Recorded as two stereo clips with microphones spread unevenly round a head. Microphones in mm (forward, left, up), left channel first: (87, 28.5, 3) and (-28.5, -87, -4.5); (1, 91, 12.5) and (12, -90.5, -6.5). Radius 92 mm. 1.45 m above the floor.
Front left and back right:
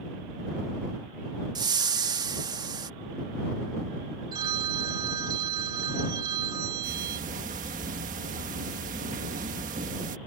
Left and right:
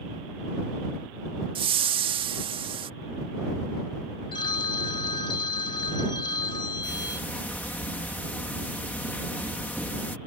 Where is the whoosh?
110° right.